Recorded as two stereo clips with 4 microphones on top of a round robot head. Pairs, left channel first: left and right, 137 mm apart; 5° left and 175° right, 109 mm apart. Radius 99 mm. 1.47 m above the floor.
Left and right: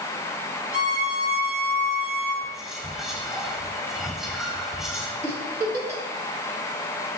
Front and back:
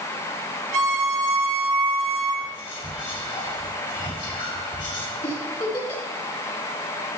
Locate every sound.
0.7 s a violin: 170° right, 3 m
2.4 s whispering: 5° right, 2 m
5.2 s a giggle: 30° right, 1.6 m